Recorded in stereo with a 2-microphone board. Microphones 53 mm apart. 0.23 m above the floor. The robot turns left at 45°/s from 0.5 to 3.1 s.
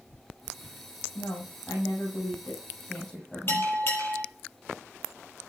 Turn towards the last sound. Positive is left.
turn(degrees=45)  # may be behind; listen again after turning